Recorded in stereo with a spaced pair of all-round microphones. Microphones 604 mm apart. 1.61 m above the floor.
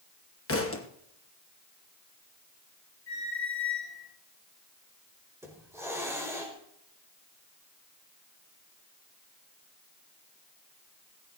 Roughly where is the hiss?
Centre.